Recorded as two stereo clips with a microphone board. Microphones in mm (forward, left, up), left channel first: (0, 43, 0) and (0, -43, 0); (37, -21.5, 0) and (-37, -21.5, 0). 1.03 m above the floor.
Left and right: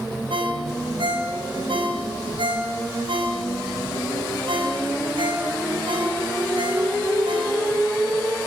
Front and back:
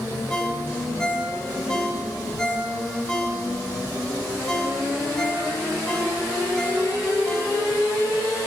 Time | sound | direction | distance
0.3 | a ringtone | 80° right | 5 m